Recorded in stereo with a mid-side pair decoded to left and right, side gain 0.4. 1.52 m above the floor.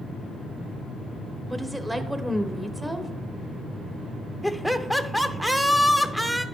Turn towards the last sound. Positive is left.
turn(degrees=-10)